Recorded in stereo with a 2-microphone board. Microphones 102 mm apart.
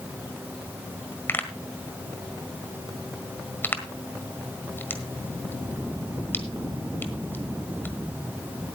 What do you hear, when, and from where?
1.3 s a pop: 20° left (ahead or behind), 1.5 m